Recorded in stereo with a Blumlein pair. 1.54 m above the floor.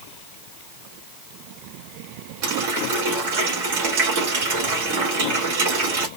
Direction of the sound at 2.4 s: 50° right.